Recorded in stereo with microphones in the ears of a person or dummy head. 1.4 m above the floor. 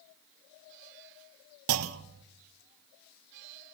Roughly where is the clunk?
Right.